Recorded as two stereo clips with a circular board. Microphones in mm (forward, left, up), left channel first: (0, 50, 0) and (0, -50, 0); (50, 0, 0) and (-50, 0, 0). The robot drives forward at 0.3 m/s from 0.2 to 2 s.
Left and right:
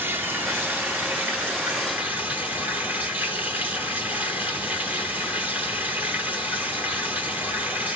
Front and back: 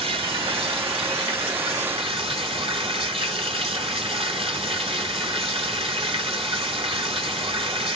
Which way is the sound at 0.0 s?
160° right.